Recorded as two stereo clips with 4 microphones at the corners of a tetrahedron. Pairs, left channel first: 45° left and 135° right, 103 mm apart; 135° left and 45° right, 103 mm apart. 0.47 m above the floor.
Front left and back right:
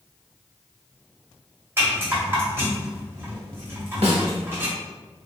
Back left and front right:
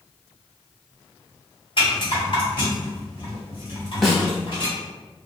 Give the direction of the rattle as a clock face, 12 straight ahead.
7 o'clock.